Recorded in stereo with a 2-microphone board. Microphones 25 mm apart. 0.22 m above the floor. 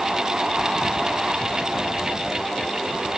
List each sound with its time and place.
Only background noise.